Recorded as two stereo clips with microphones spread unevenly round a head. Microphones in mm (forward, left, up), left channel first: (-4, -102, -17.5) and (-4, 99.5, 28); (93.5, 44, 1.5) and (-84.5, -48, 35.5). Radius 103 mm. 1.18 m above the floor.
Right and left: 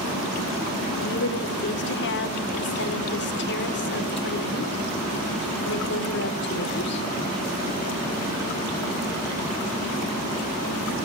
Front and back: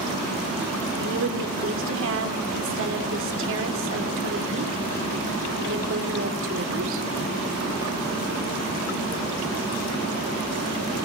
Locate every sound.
1.0 s a woman speaking: 125° right, 3.5 m